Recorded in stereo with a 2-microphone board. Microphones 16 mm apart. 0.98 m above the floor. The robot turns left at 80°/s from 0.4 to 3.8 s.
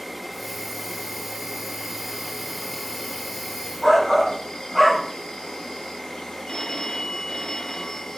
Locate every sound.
0.0 s an insect: 15° right, 1.5 m; by 8.2 s 75° left, 1.5 m
3.8 s a shout: 20° left (ahead or behind), 1.0 m
6.5 s a phone ringing: 70° left (ahead or behind), 0.8 m